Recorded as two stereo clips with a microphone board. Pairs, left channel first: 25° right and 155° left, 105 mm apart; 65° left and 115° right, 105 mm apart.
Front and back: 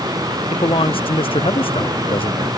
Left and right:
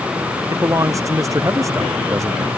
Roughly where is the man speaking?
Ahead right.